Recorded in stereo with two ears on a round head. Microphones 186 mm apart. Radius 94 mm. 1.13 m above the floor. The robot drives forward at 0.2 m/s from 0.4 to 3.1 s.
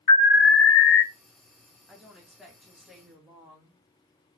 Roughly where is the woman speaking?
Centre.